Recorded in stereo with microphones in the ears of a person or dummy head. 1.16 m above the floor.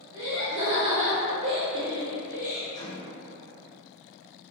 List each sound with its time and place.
0.1 s laughter: 25° right (ahead or behind), 1.6 m; by 2.6 s 5° right (ahead or behind), 1.6 m
2.7 s a microwave: 25° left (ahead or behind), 1.8 m